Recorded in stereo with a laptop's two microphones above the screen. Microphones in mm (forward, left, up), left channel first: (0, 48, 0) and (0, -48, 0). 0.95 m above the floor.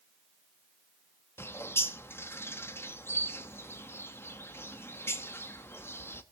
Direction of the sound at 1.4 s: 25° left (ahead or behind).